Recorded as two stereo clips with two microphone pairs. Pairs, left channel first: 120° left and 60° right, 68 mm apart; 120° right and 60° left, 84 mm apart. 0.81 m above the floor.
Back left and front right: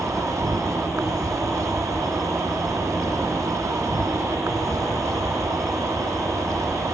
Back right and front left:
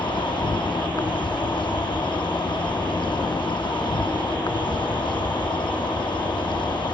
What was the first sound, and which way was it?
An insect, 100° right.